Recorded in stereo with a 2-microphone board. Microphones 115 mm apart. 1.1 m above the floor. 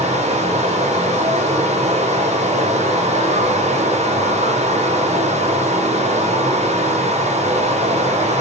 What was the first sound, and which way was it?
Running water, 65° right (ahead or behind).